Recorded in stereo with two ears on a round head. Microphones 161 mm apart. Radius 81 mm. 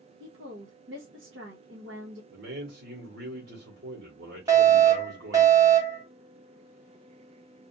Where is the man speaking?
65° right (ahead or behind), 1.2 m.